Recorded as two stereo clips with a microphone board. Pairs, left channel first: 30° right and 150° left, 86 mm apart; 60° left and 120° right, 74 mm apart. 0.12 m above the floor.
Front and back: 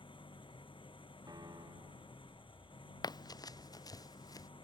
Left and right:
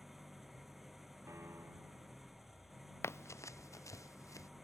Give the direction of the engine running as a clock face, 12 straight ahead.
1 o'clock.